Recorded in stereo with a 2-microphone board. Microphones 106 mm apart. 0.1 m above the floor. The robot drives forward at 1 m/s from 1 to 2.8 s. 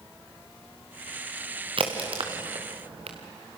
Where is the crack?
55° right (ahead or behind), 3.5 m; by 3.2 s 70° right (ahead or behind), 3 m.